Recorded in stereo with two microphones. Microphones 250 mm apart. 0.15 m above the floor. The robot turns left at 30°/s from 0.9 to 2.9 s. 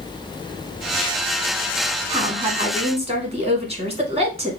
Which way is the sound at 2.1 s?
25° right (ahead or behind).